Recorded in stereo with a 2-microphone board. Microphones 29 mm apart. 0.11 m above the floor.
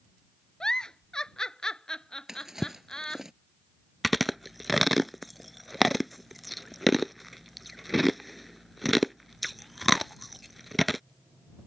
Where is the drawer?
15° right (ahead or behind).